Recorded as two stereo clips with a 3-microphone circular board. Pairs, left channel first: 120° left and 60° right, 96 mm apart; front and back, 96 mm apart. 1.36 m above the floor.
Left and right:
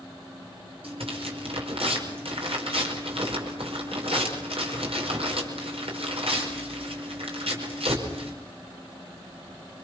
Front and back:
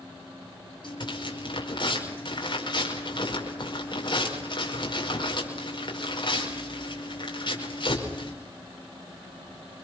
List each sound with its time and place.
0.8 s tearing paper: 40° right, 5 m